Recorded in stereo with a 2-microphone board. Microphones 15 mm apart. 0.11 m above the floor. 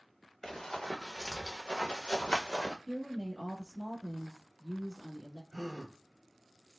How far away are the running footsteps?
About 1.1 m.